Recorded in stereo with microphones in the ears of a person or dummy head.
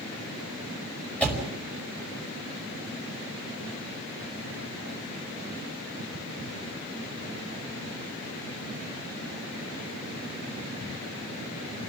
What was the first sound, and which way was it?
A door slam, 10° left (ahead or behind).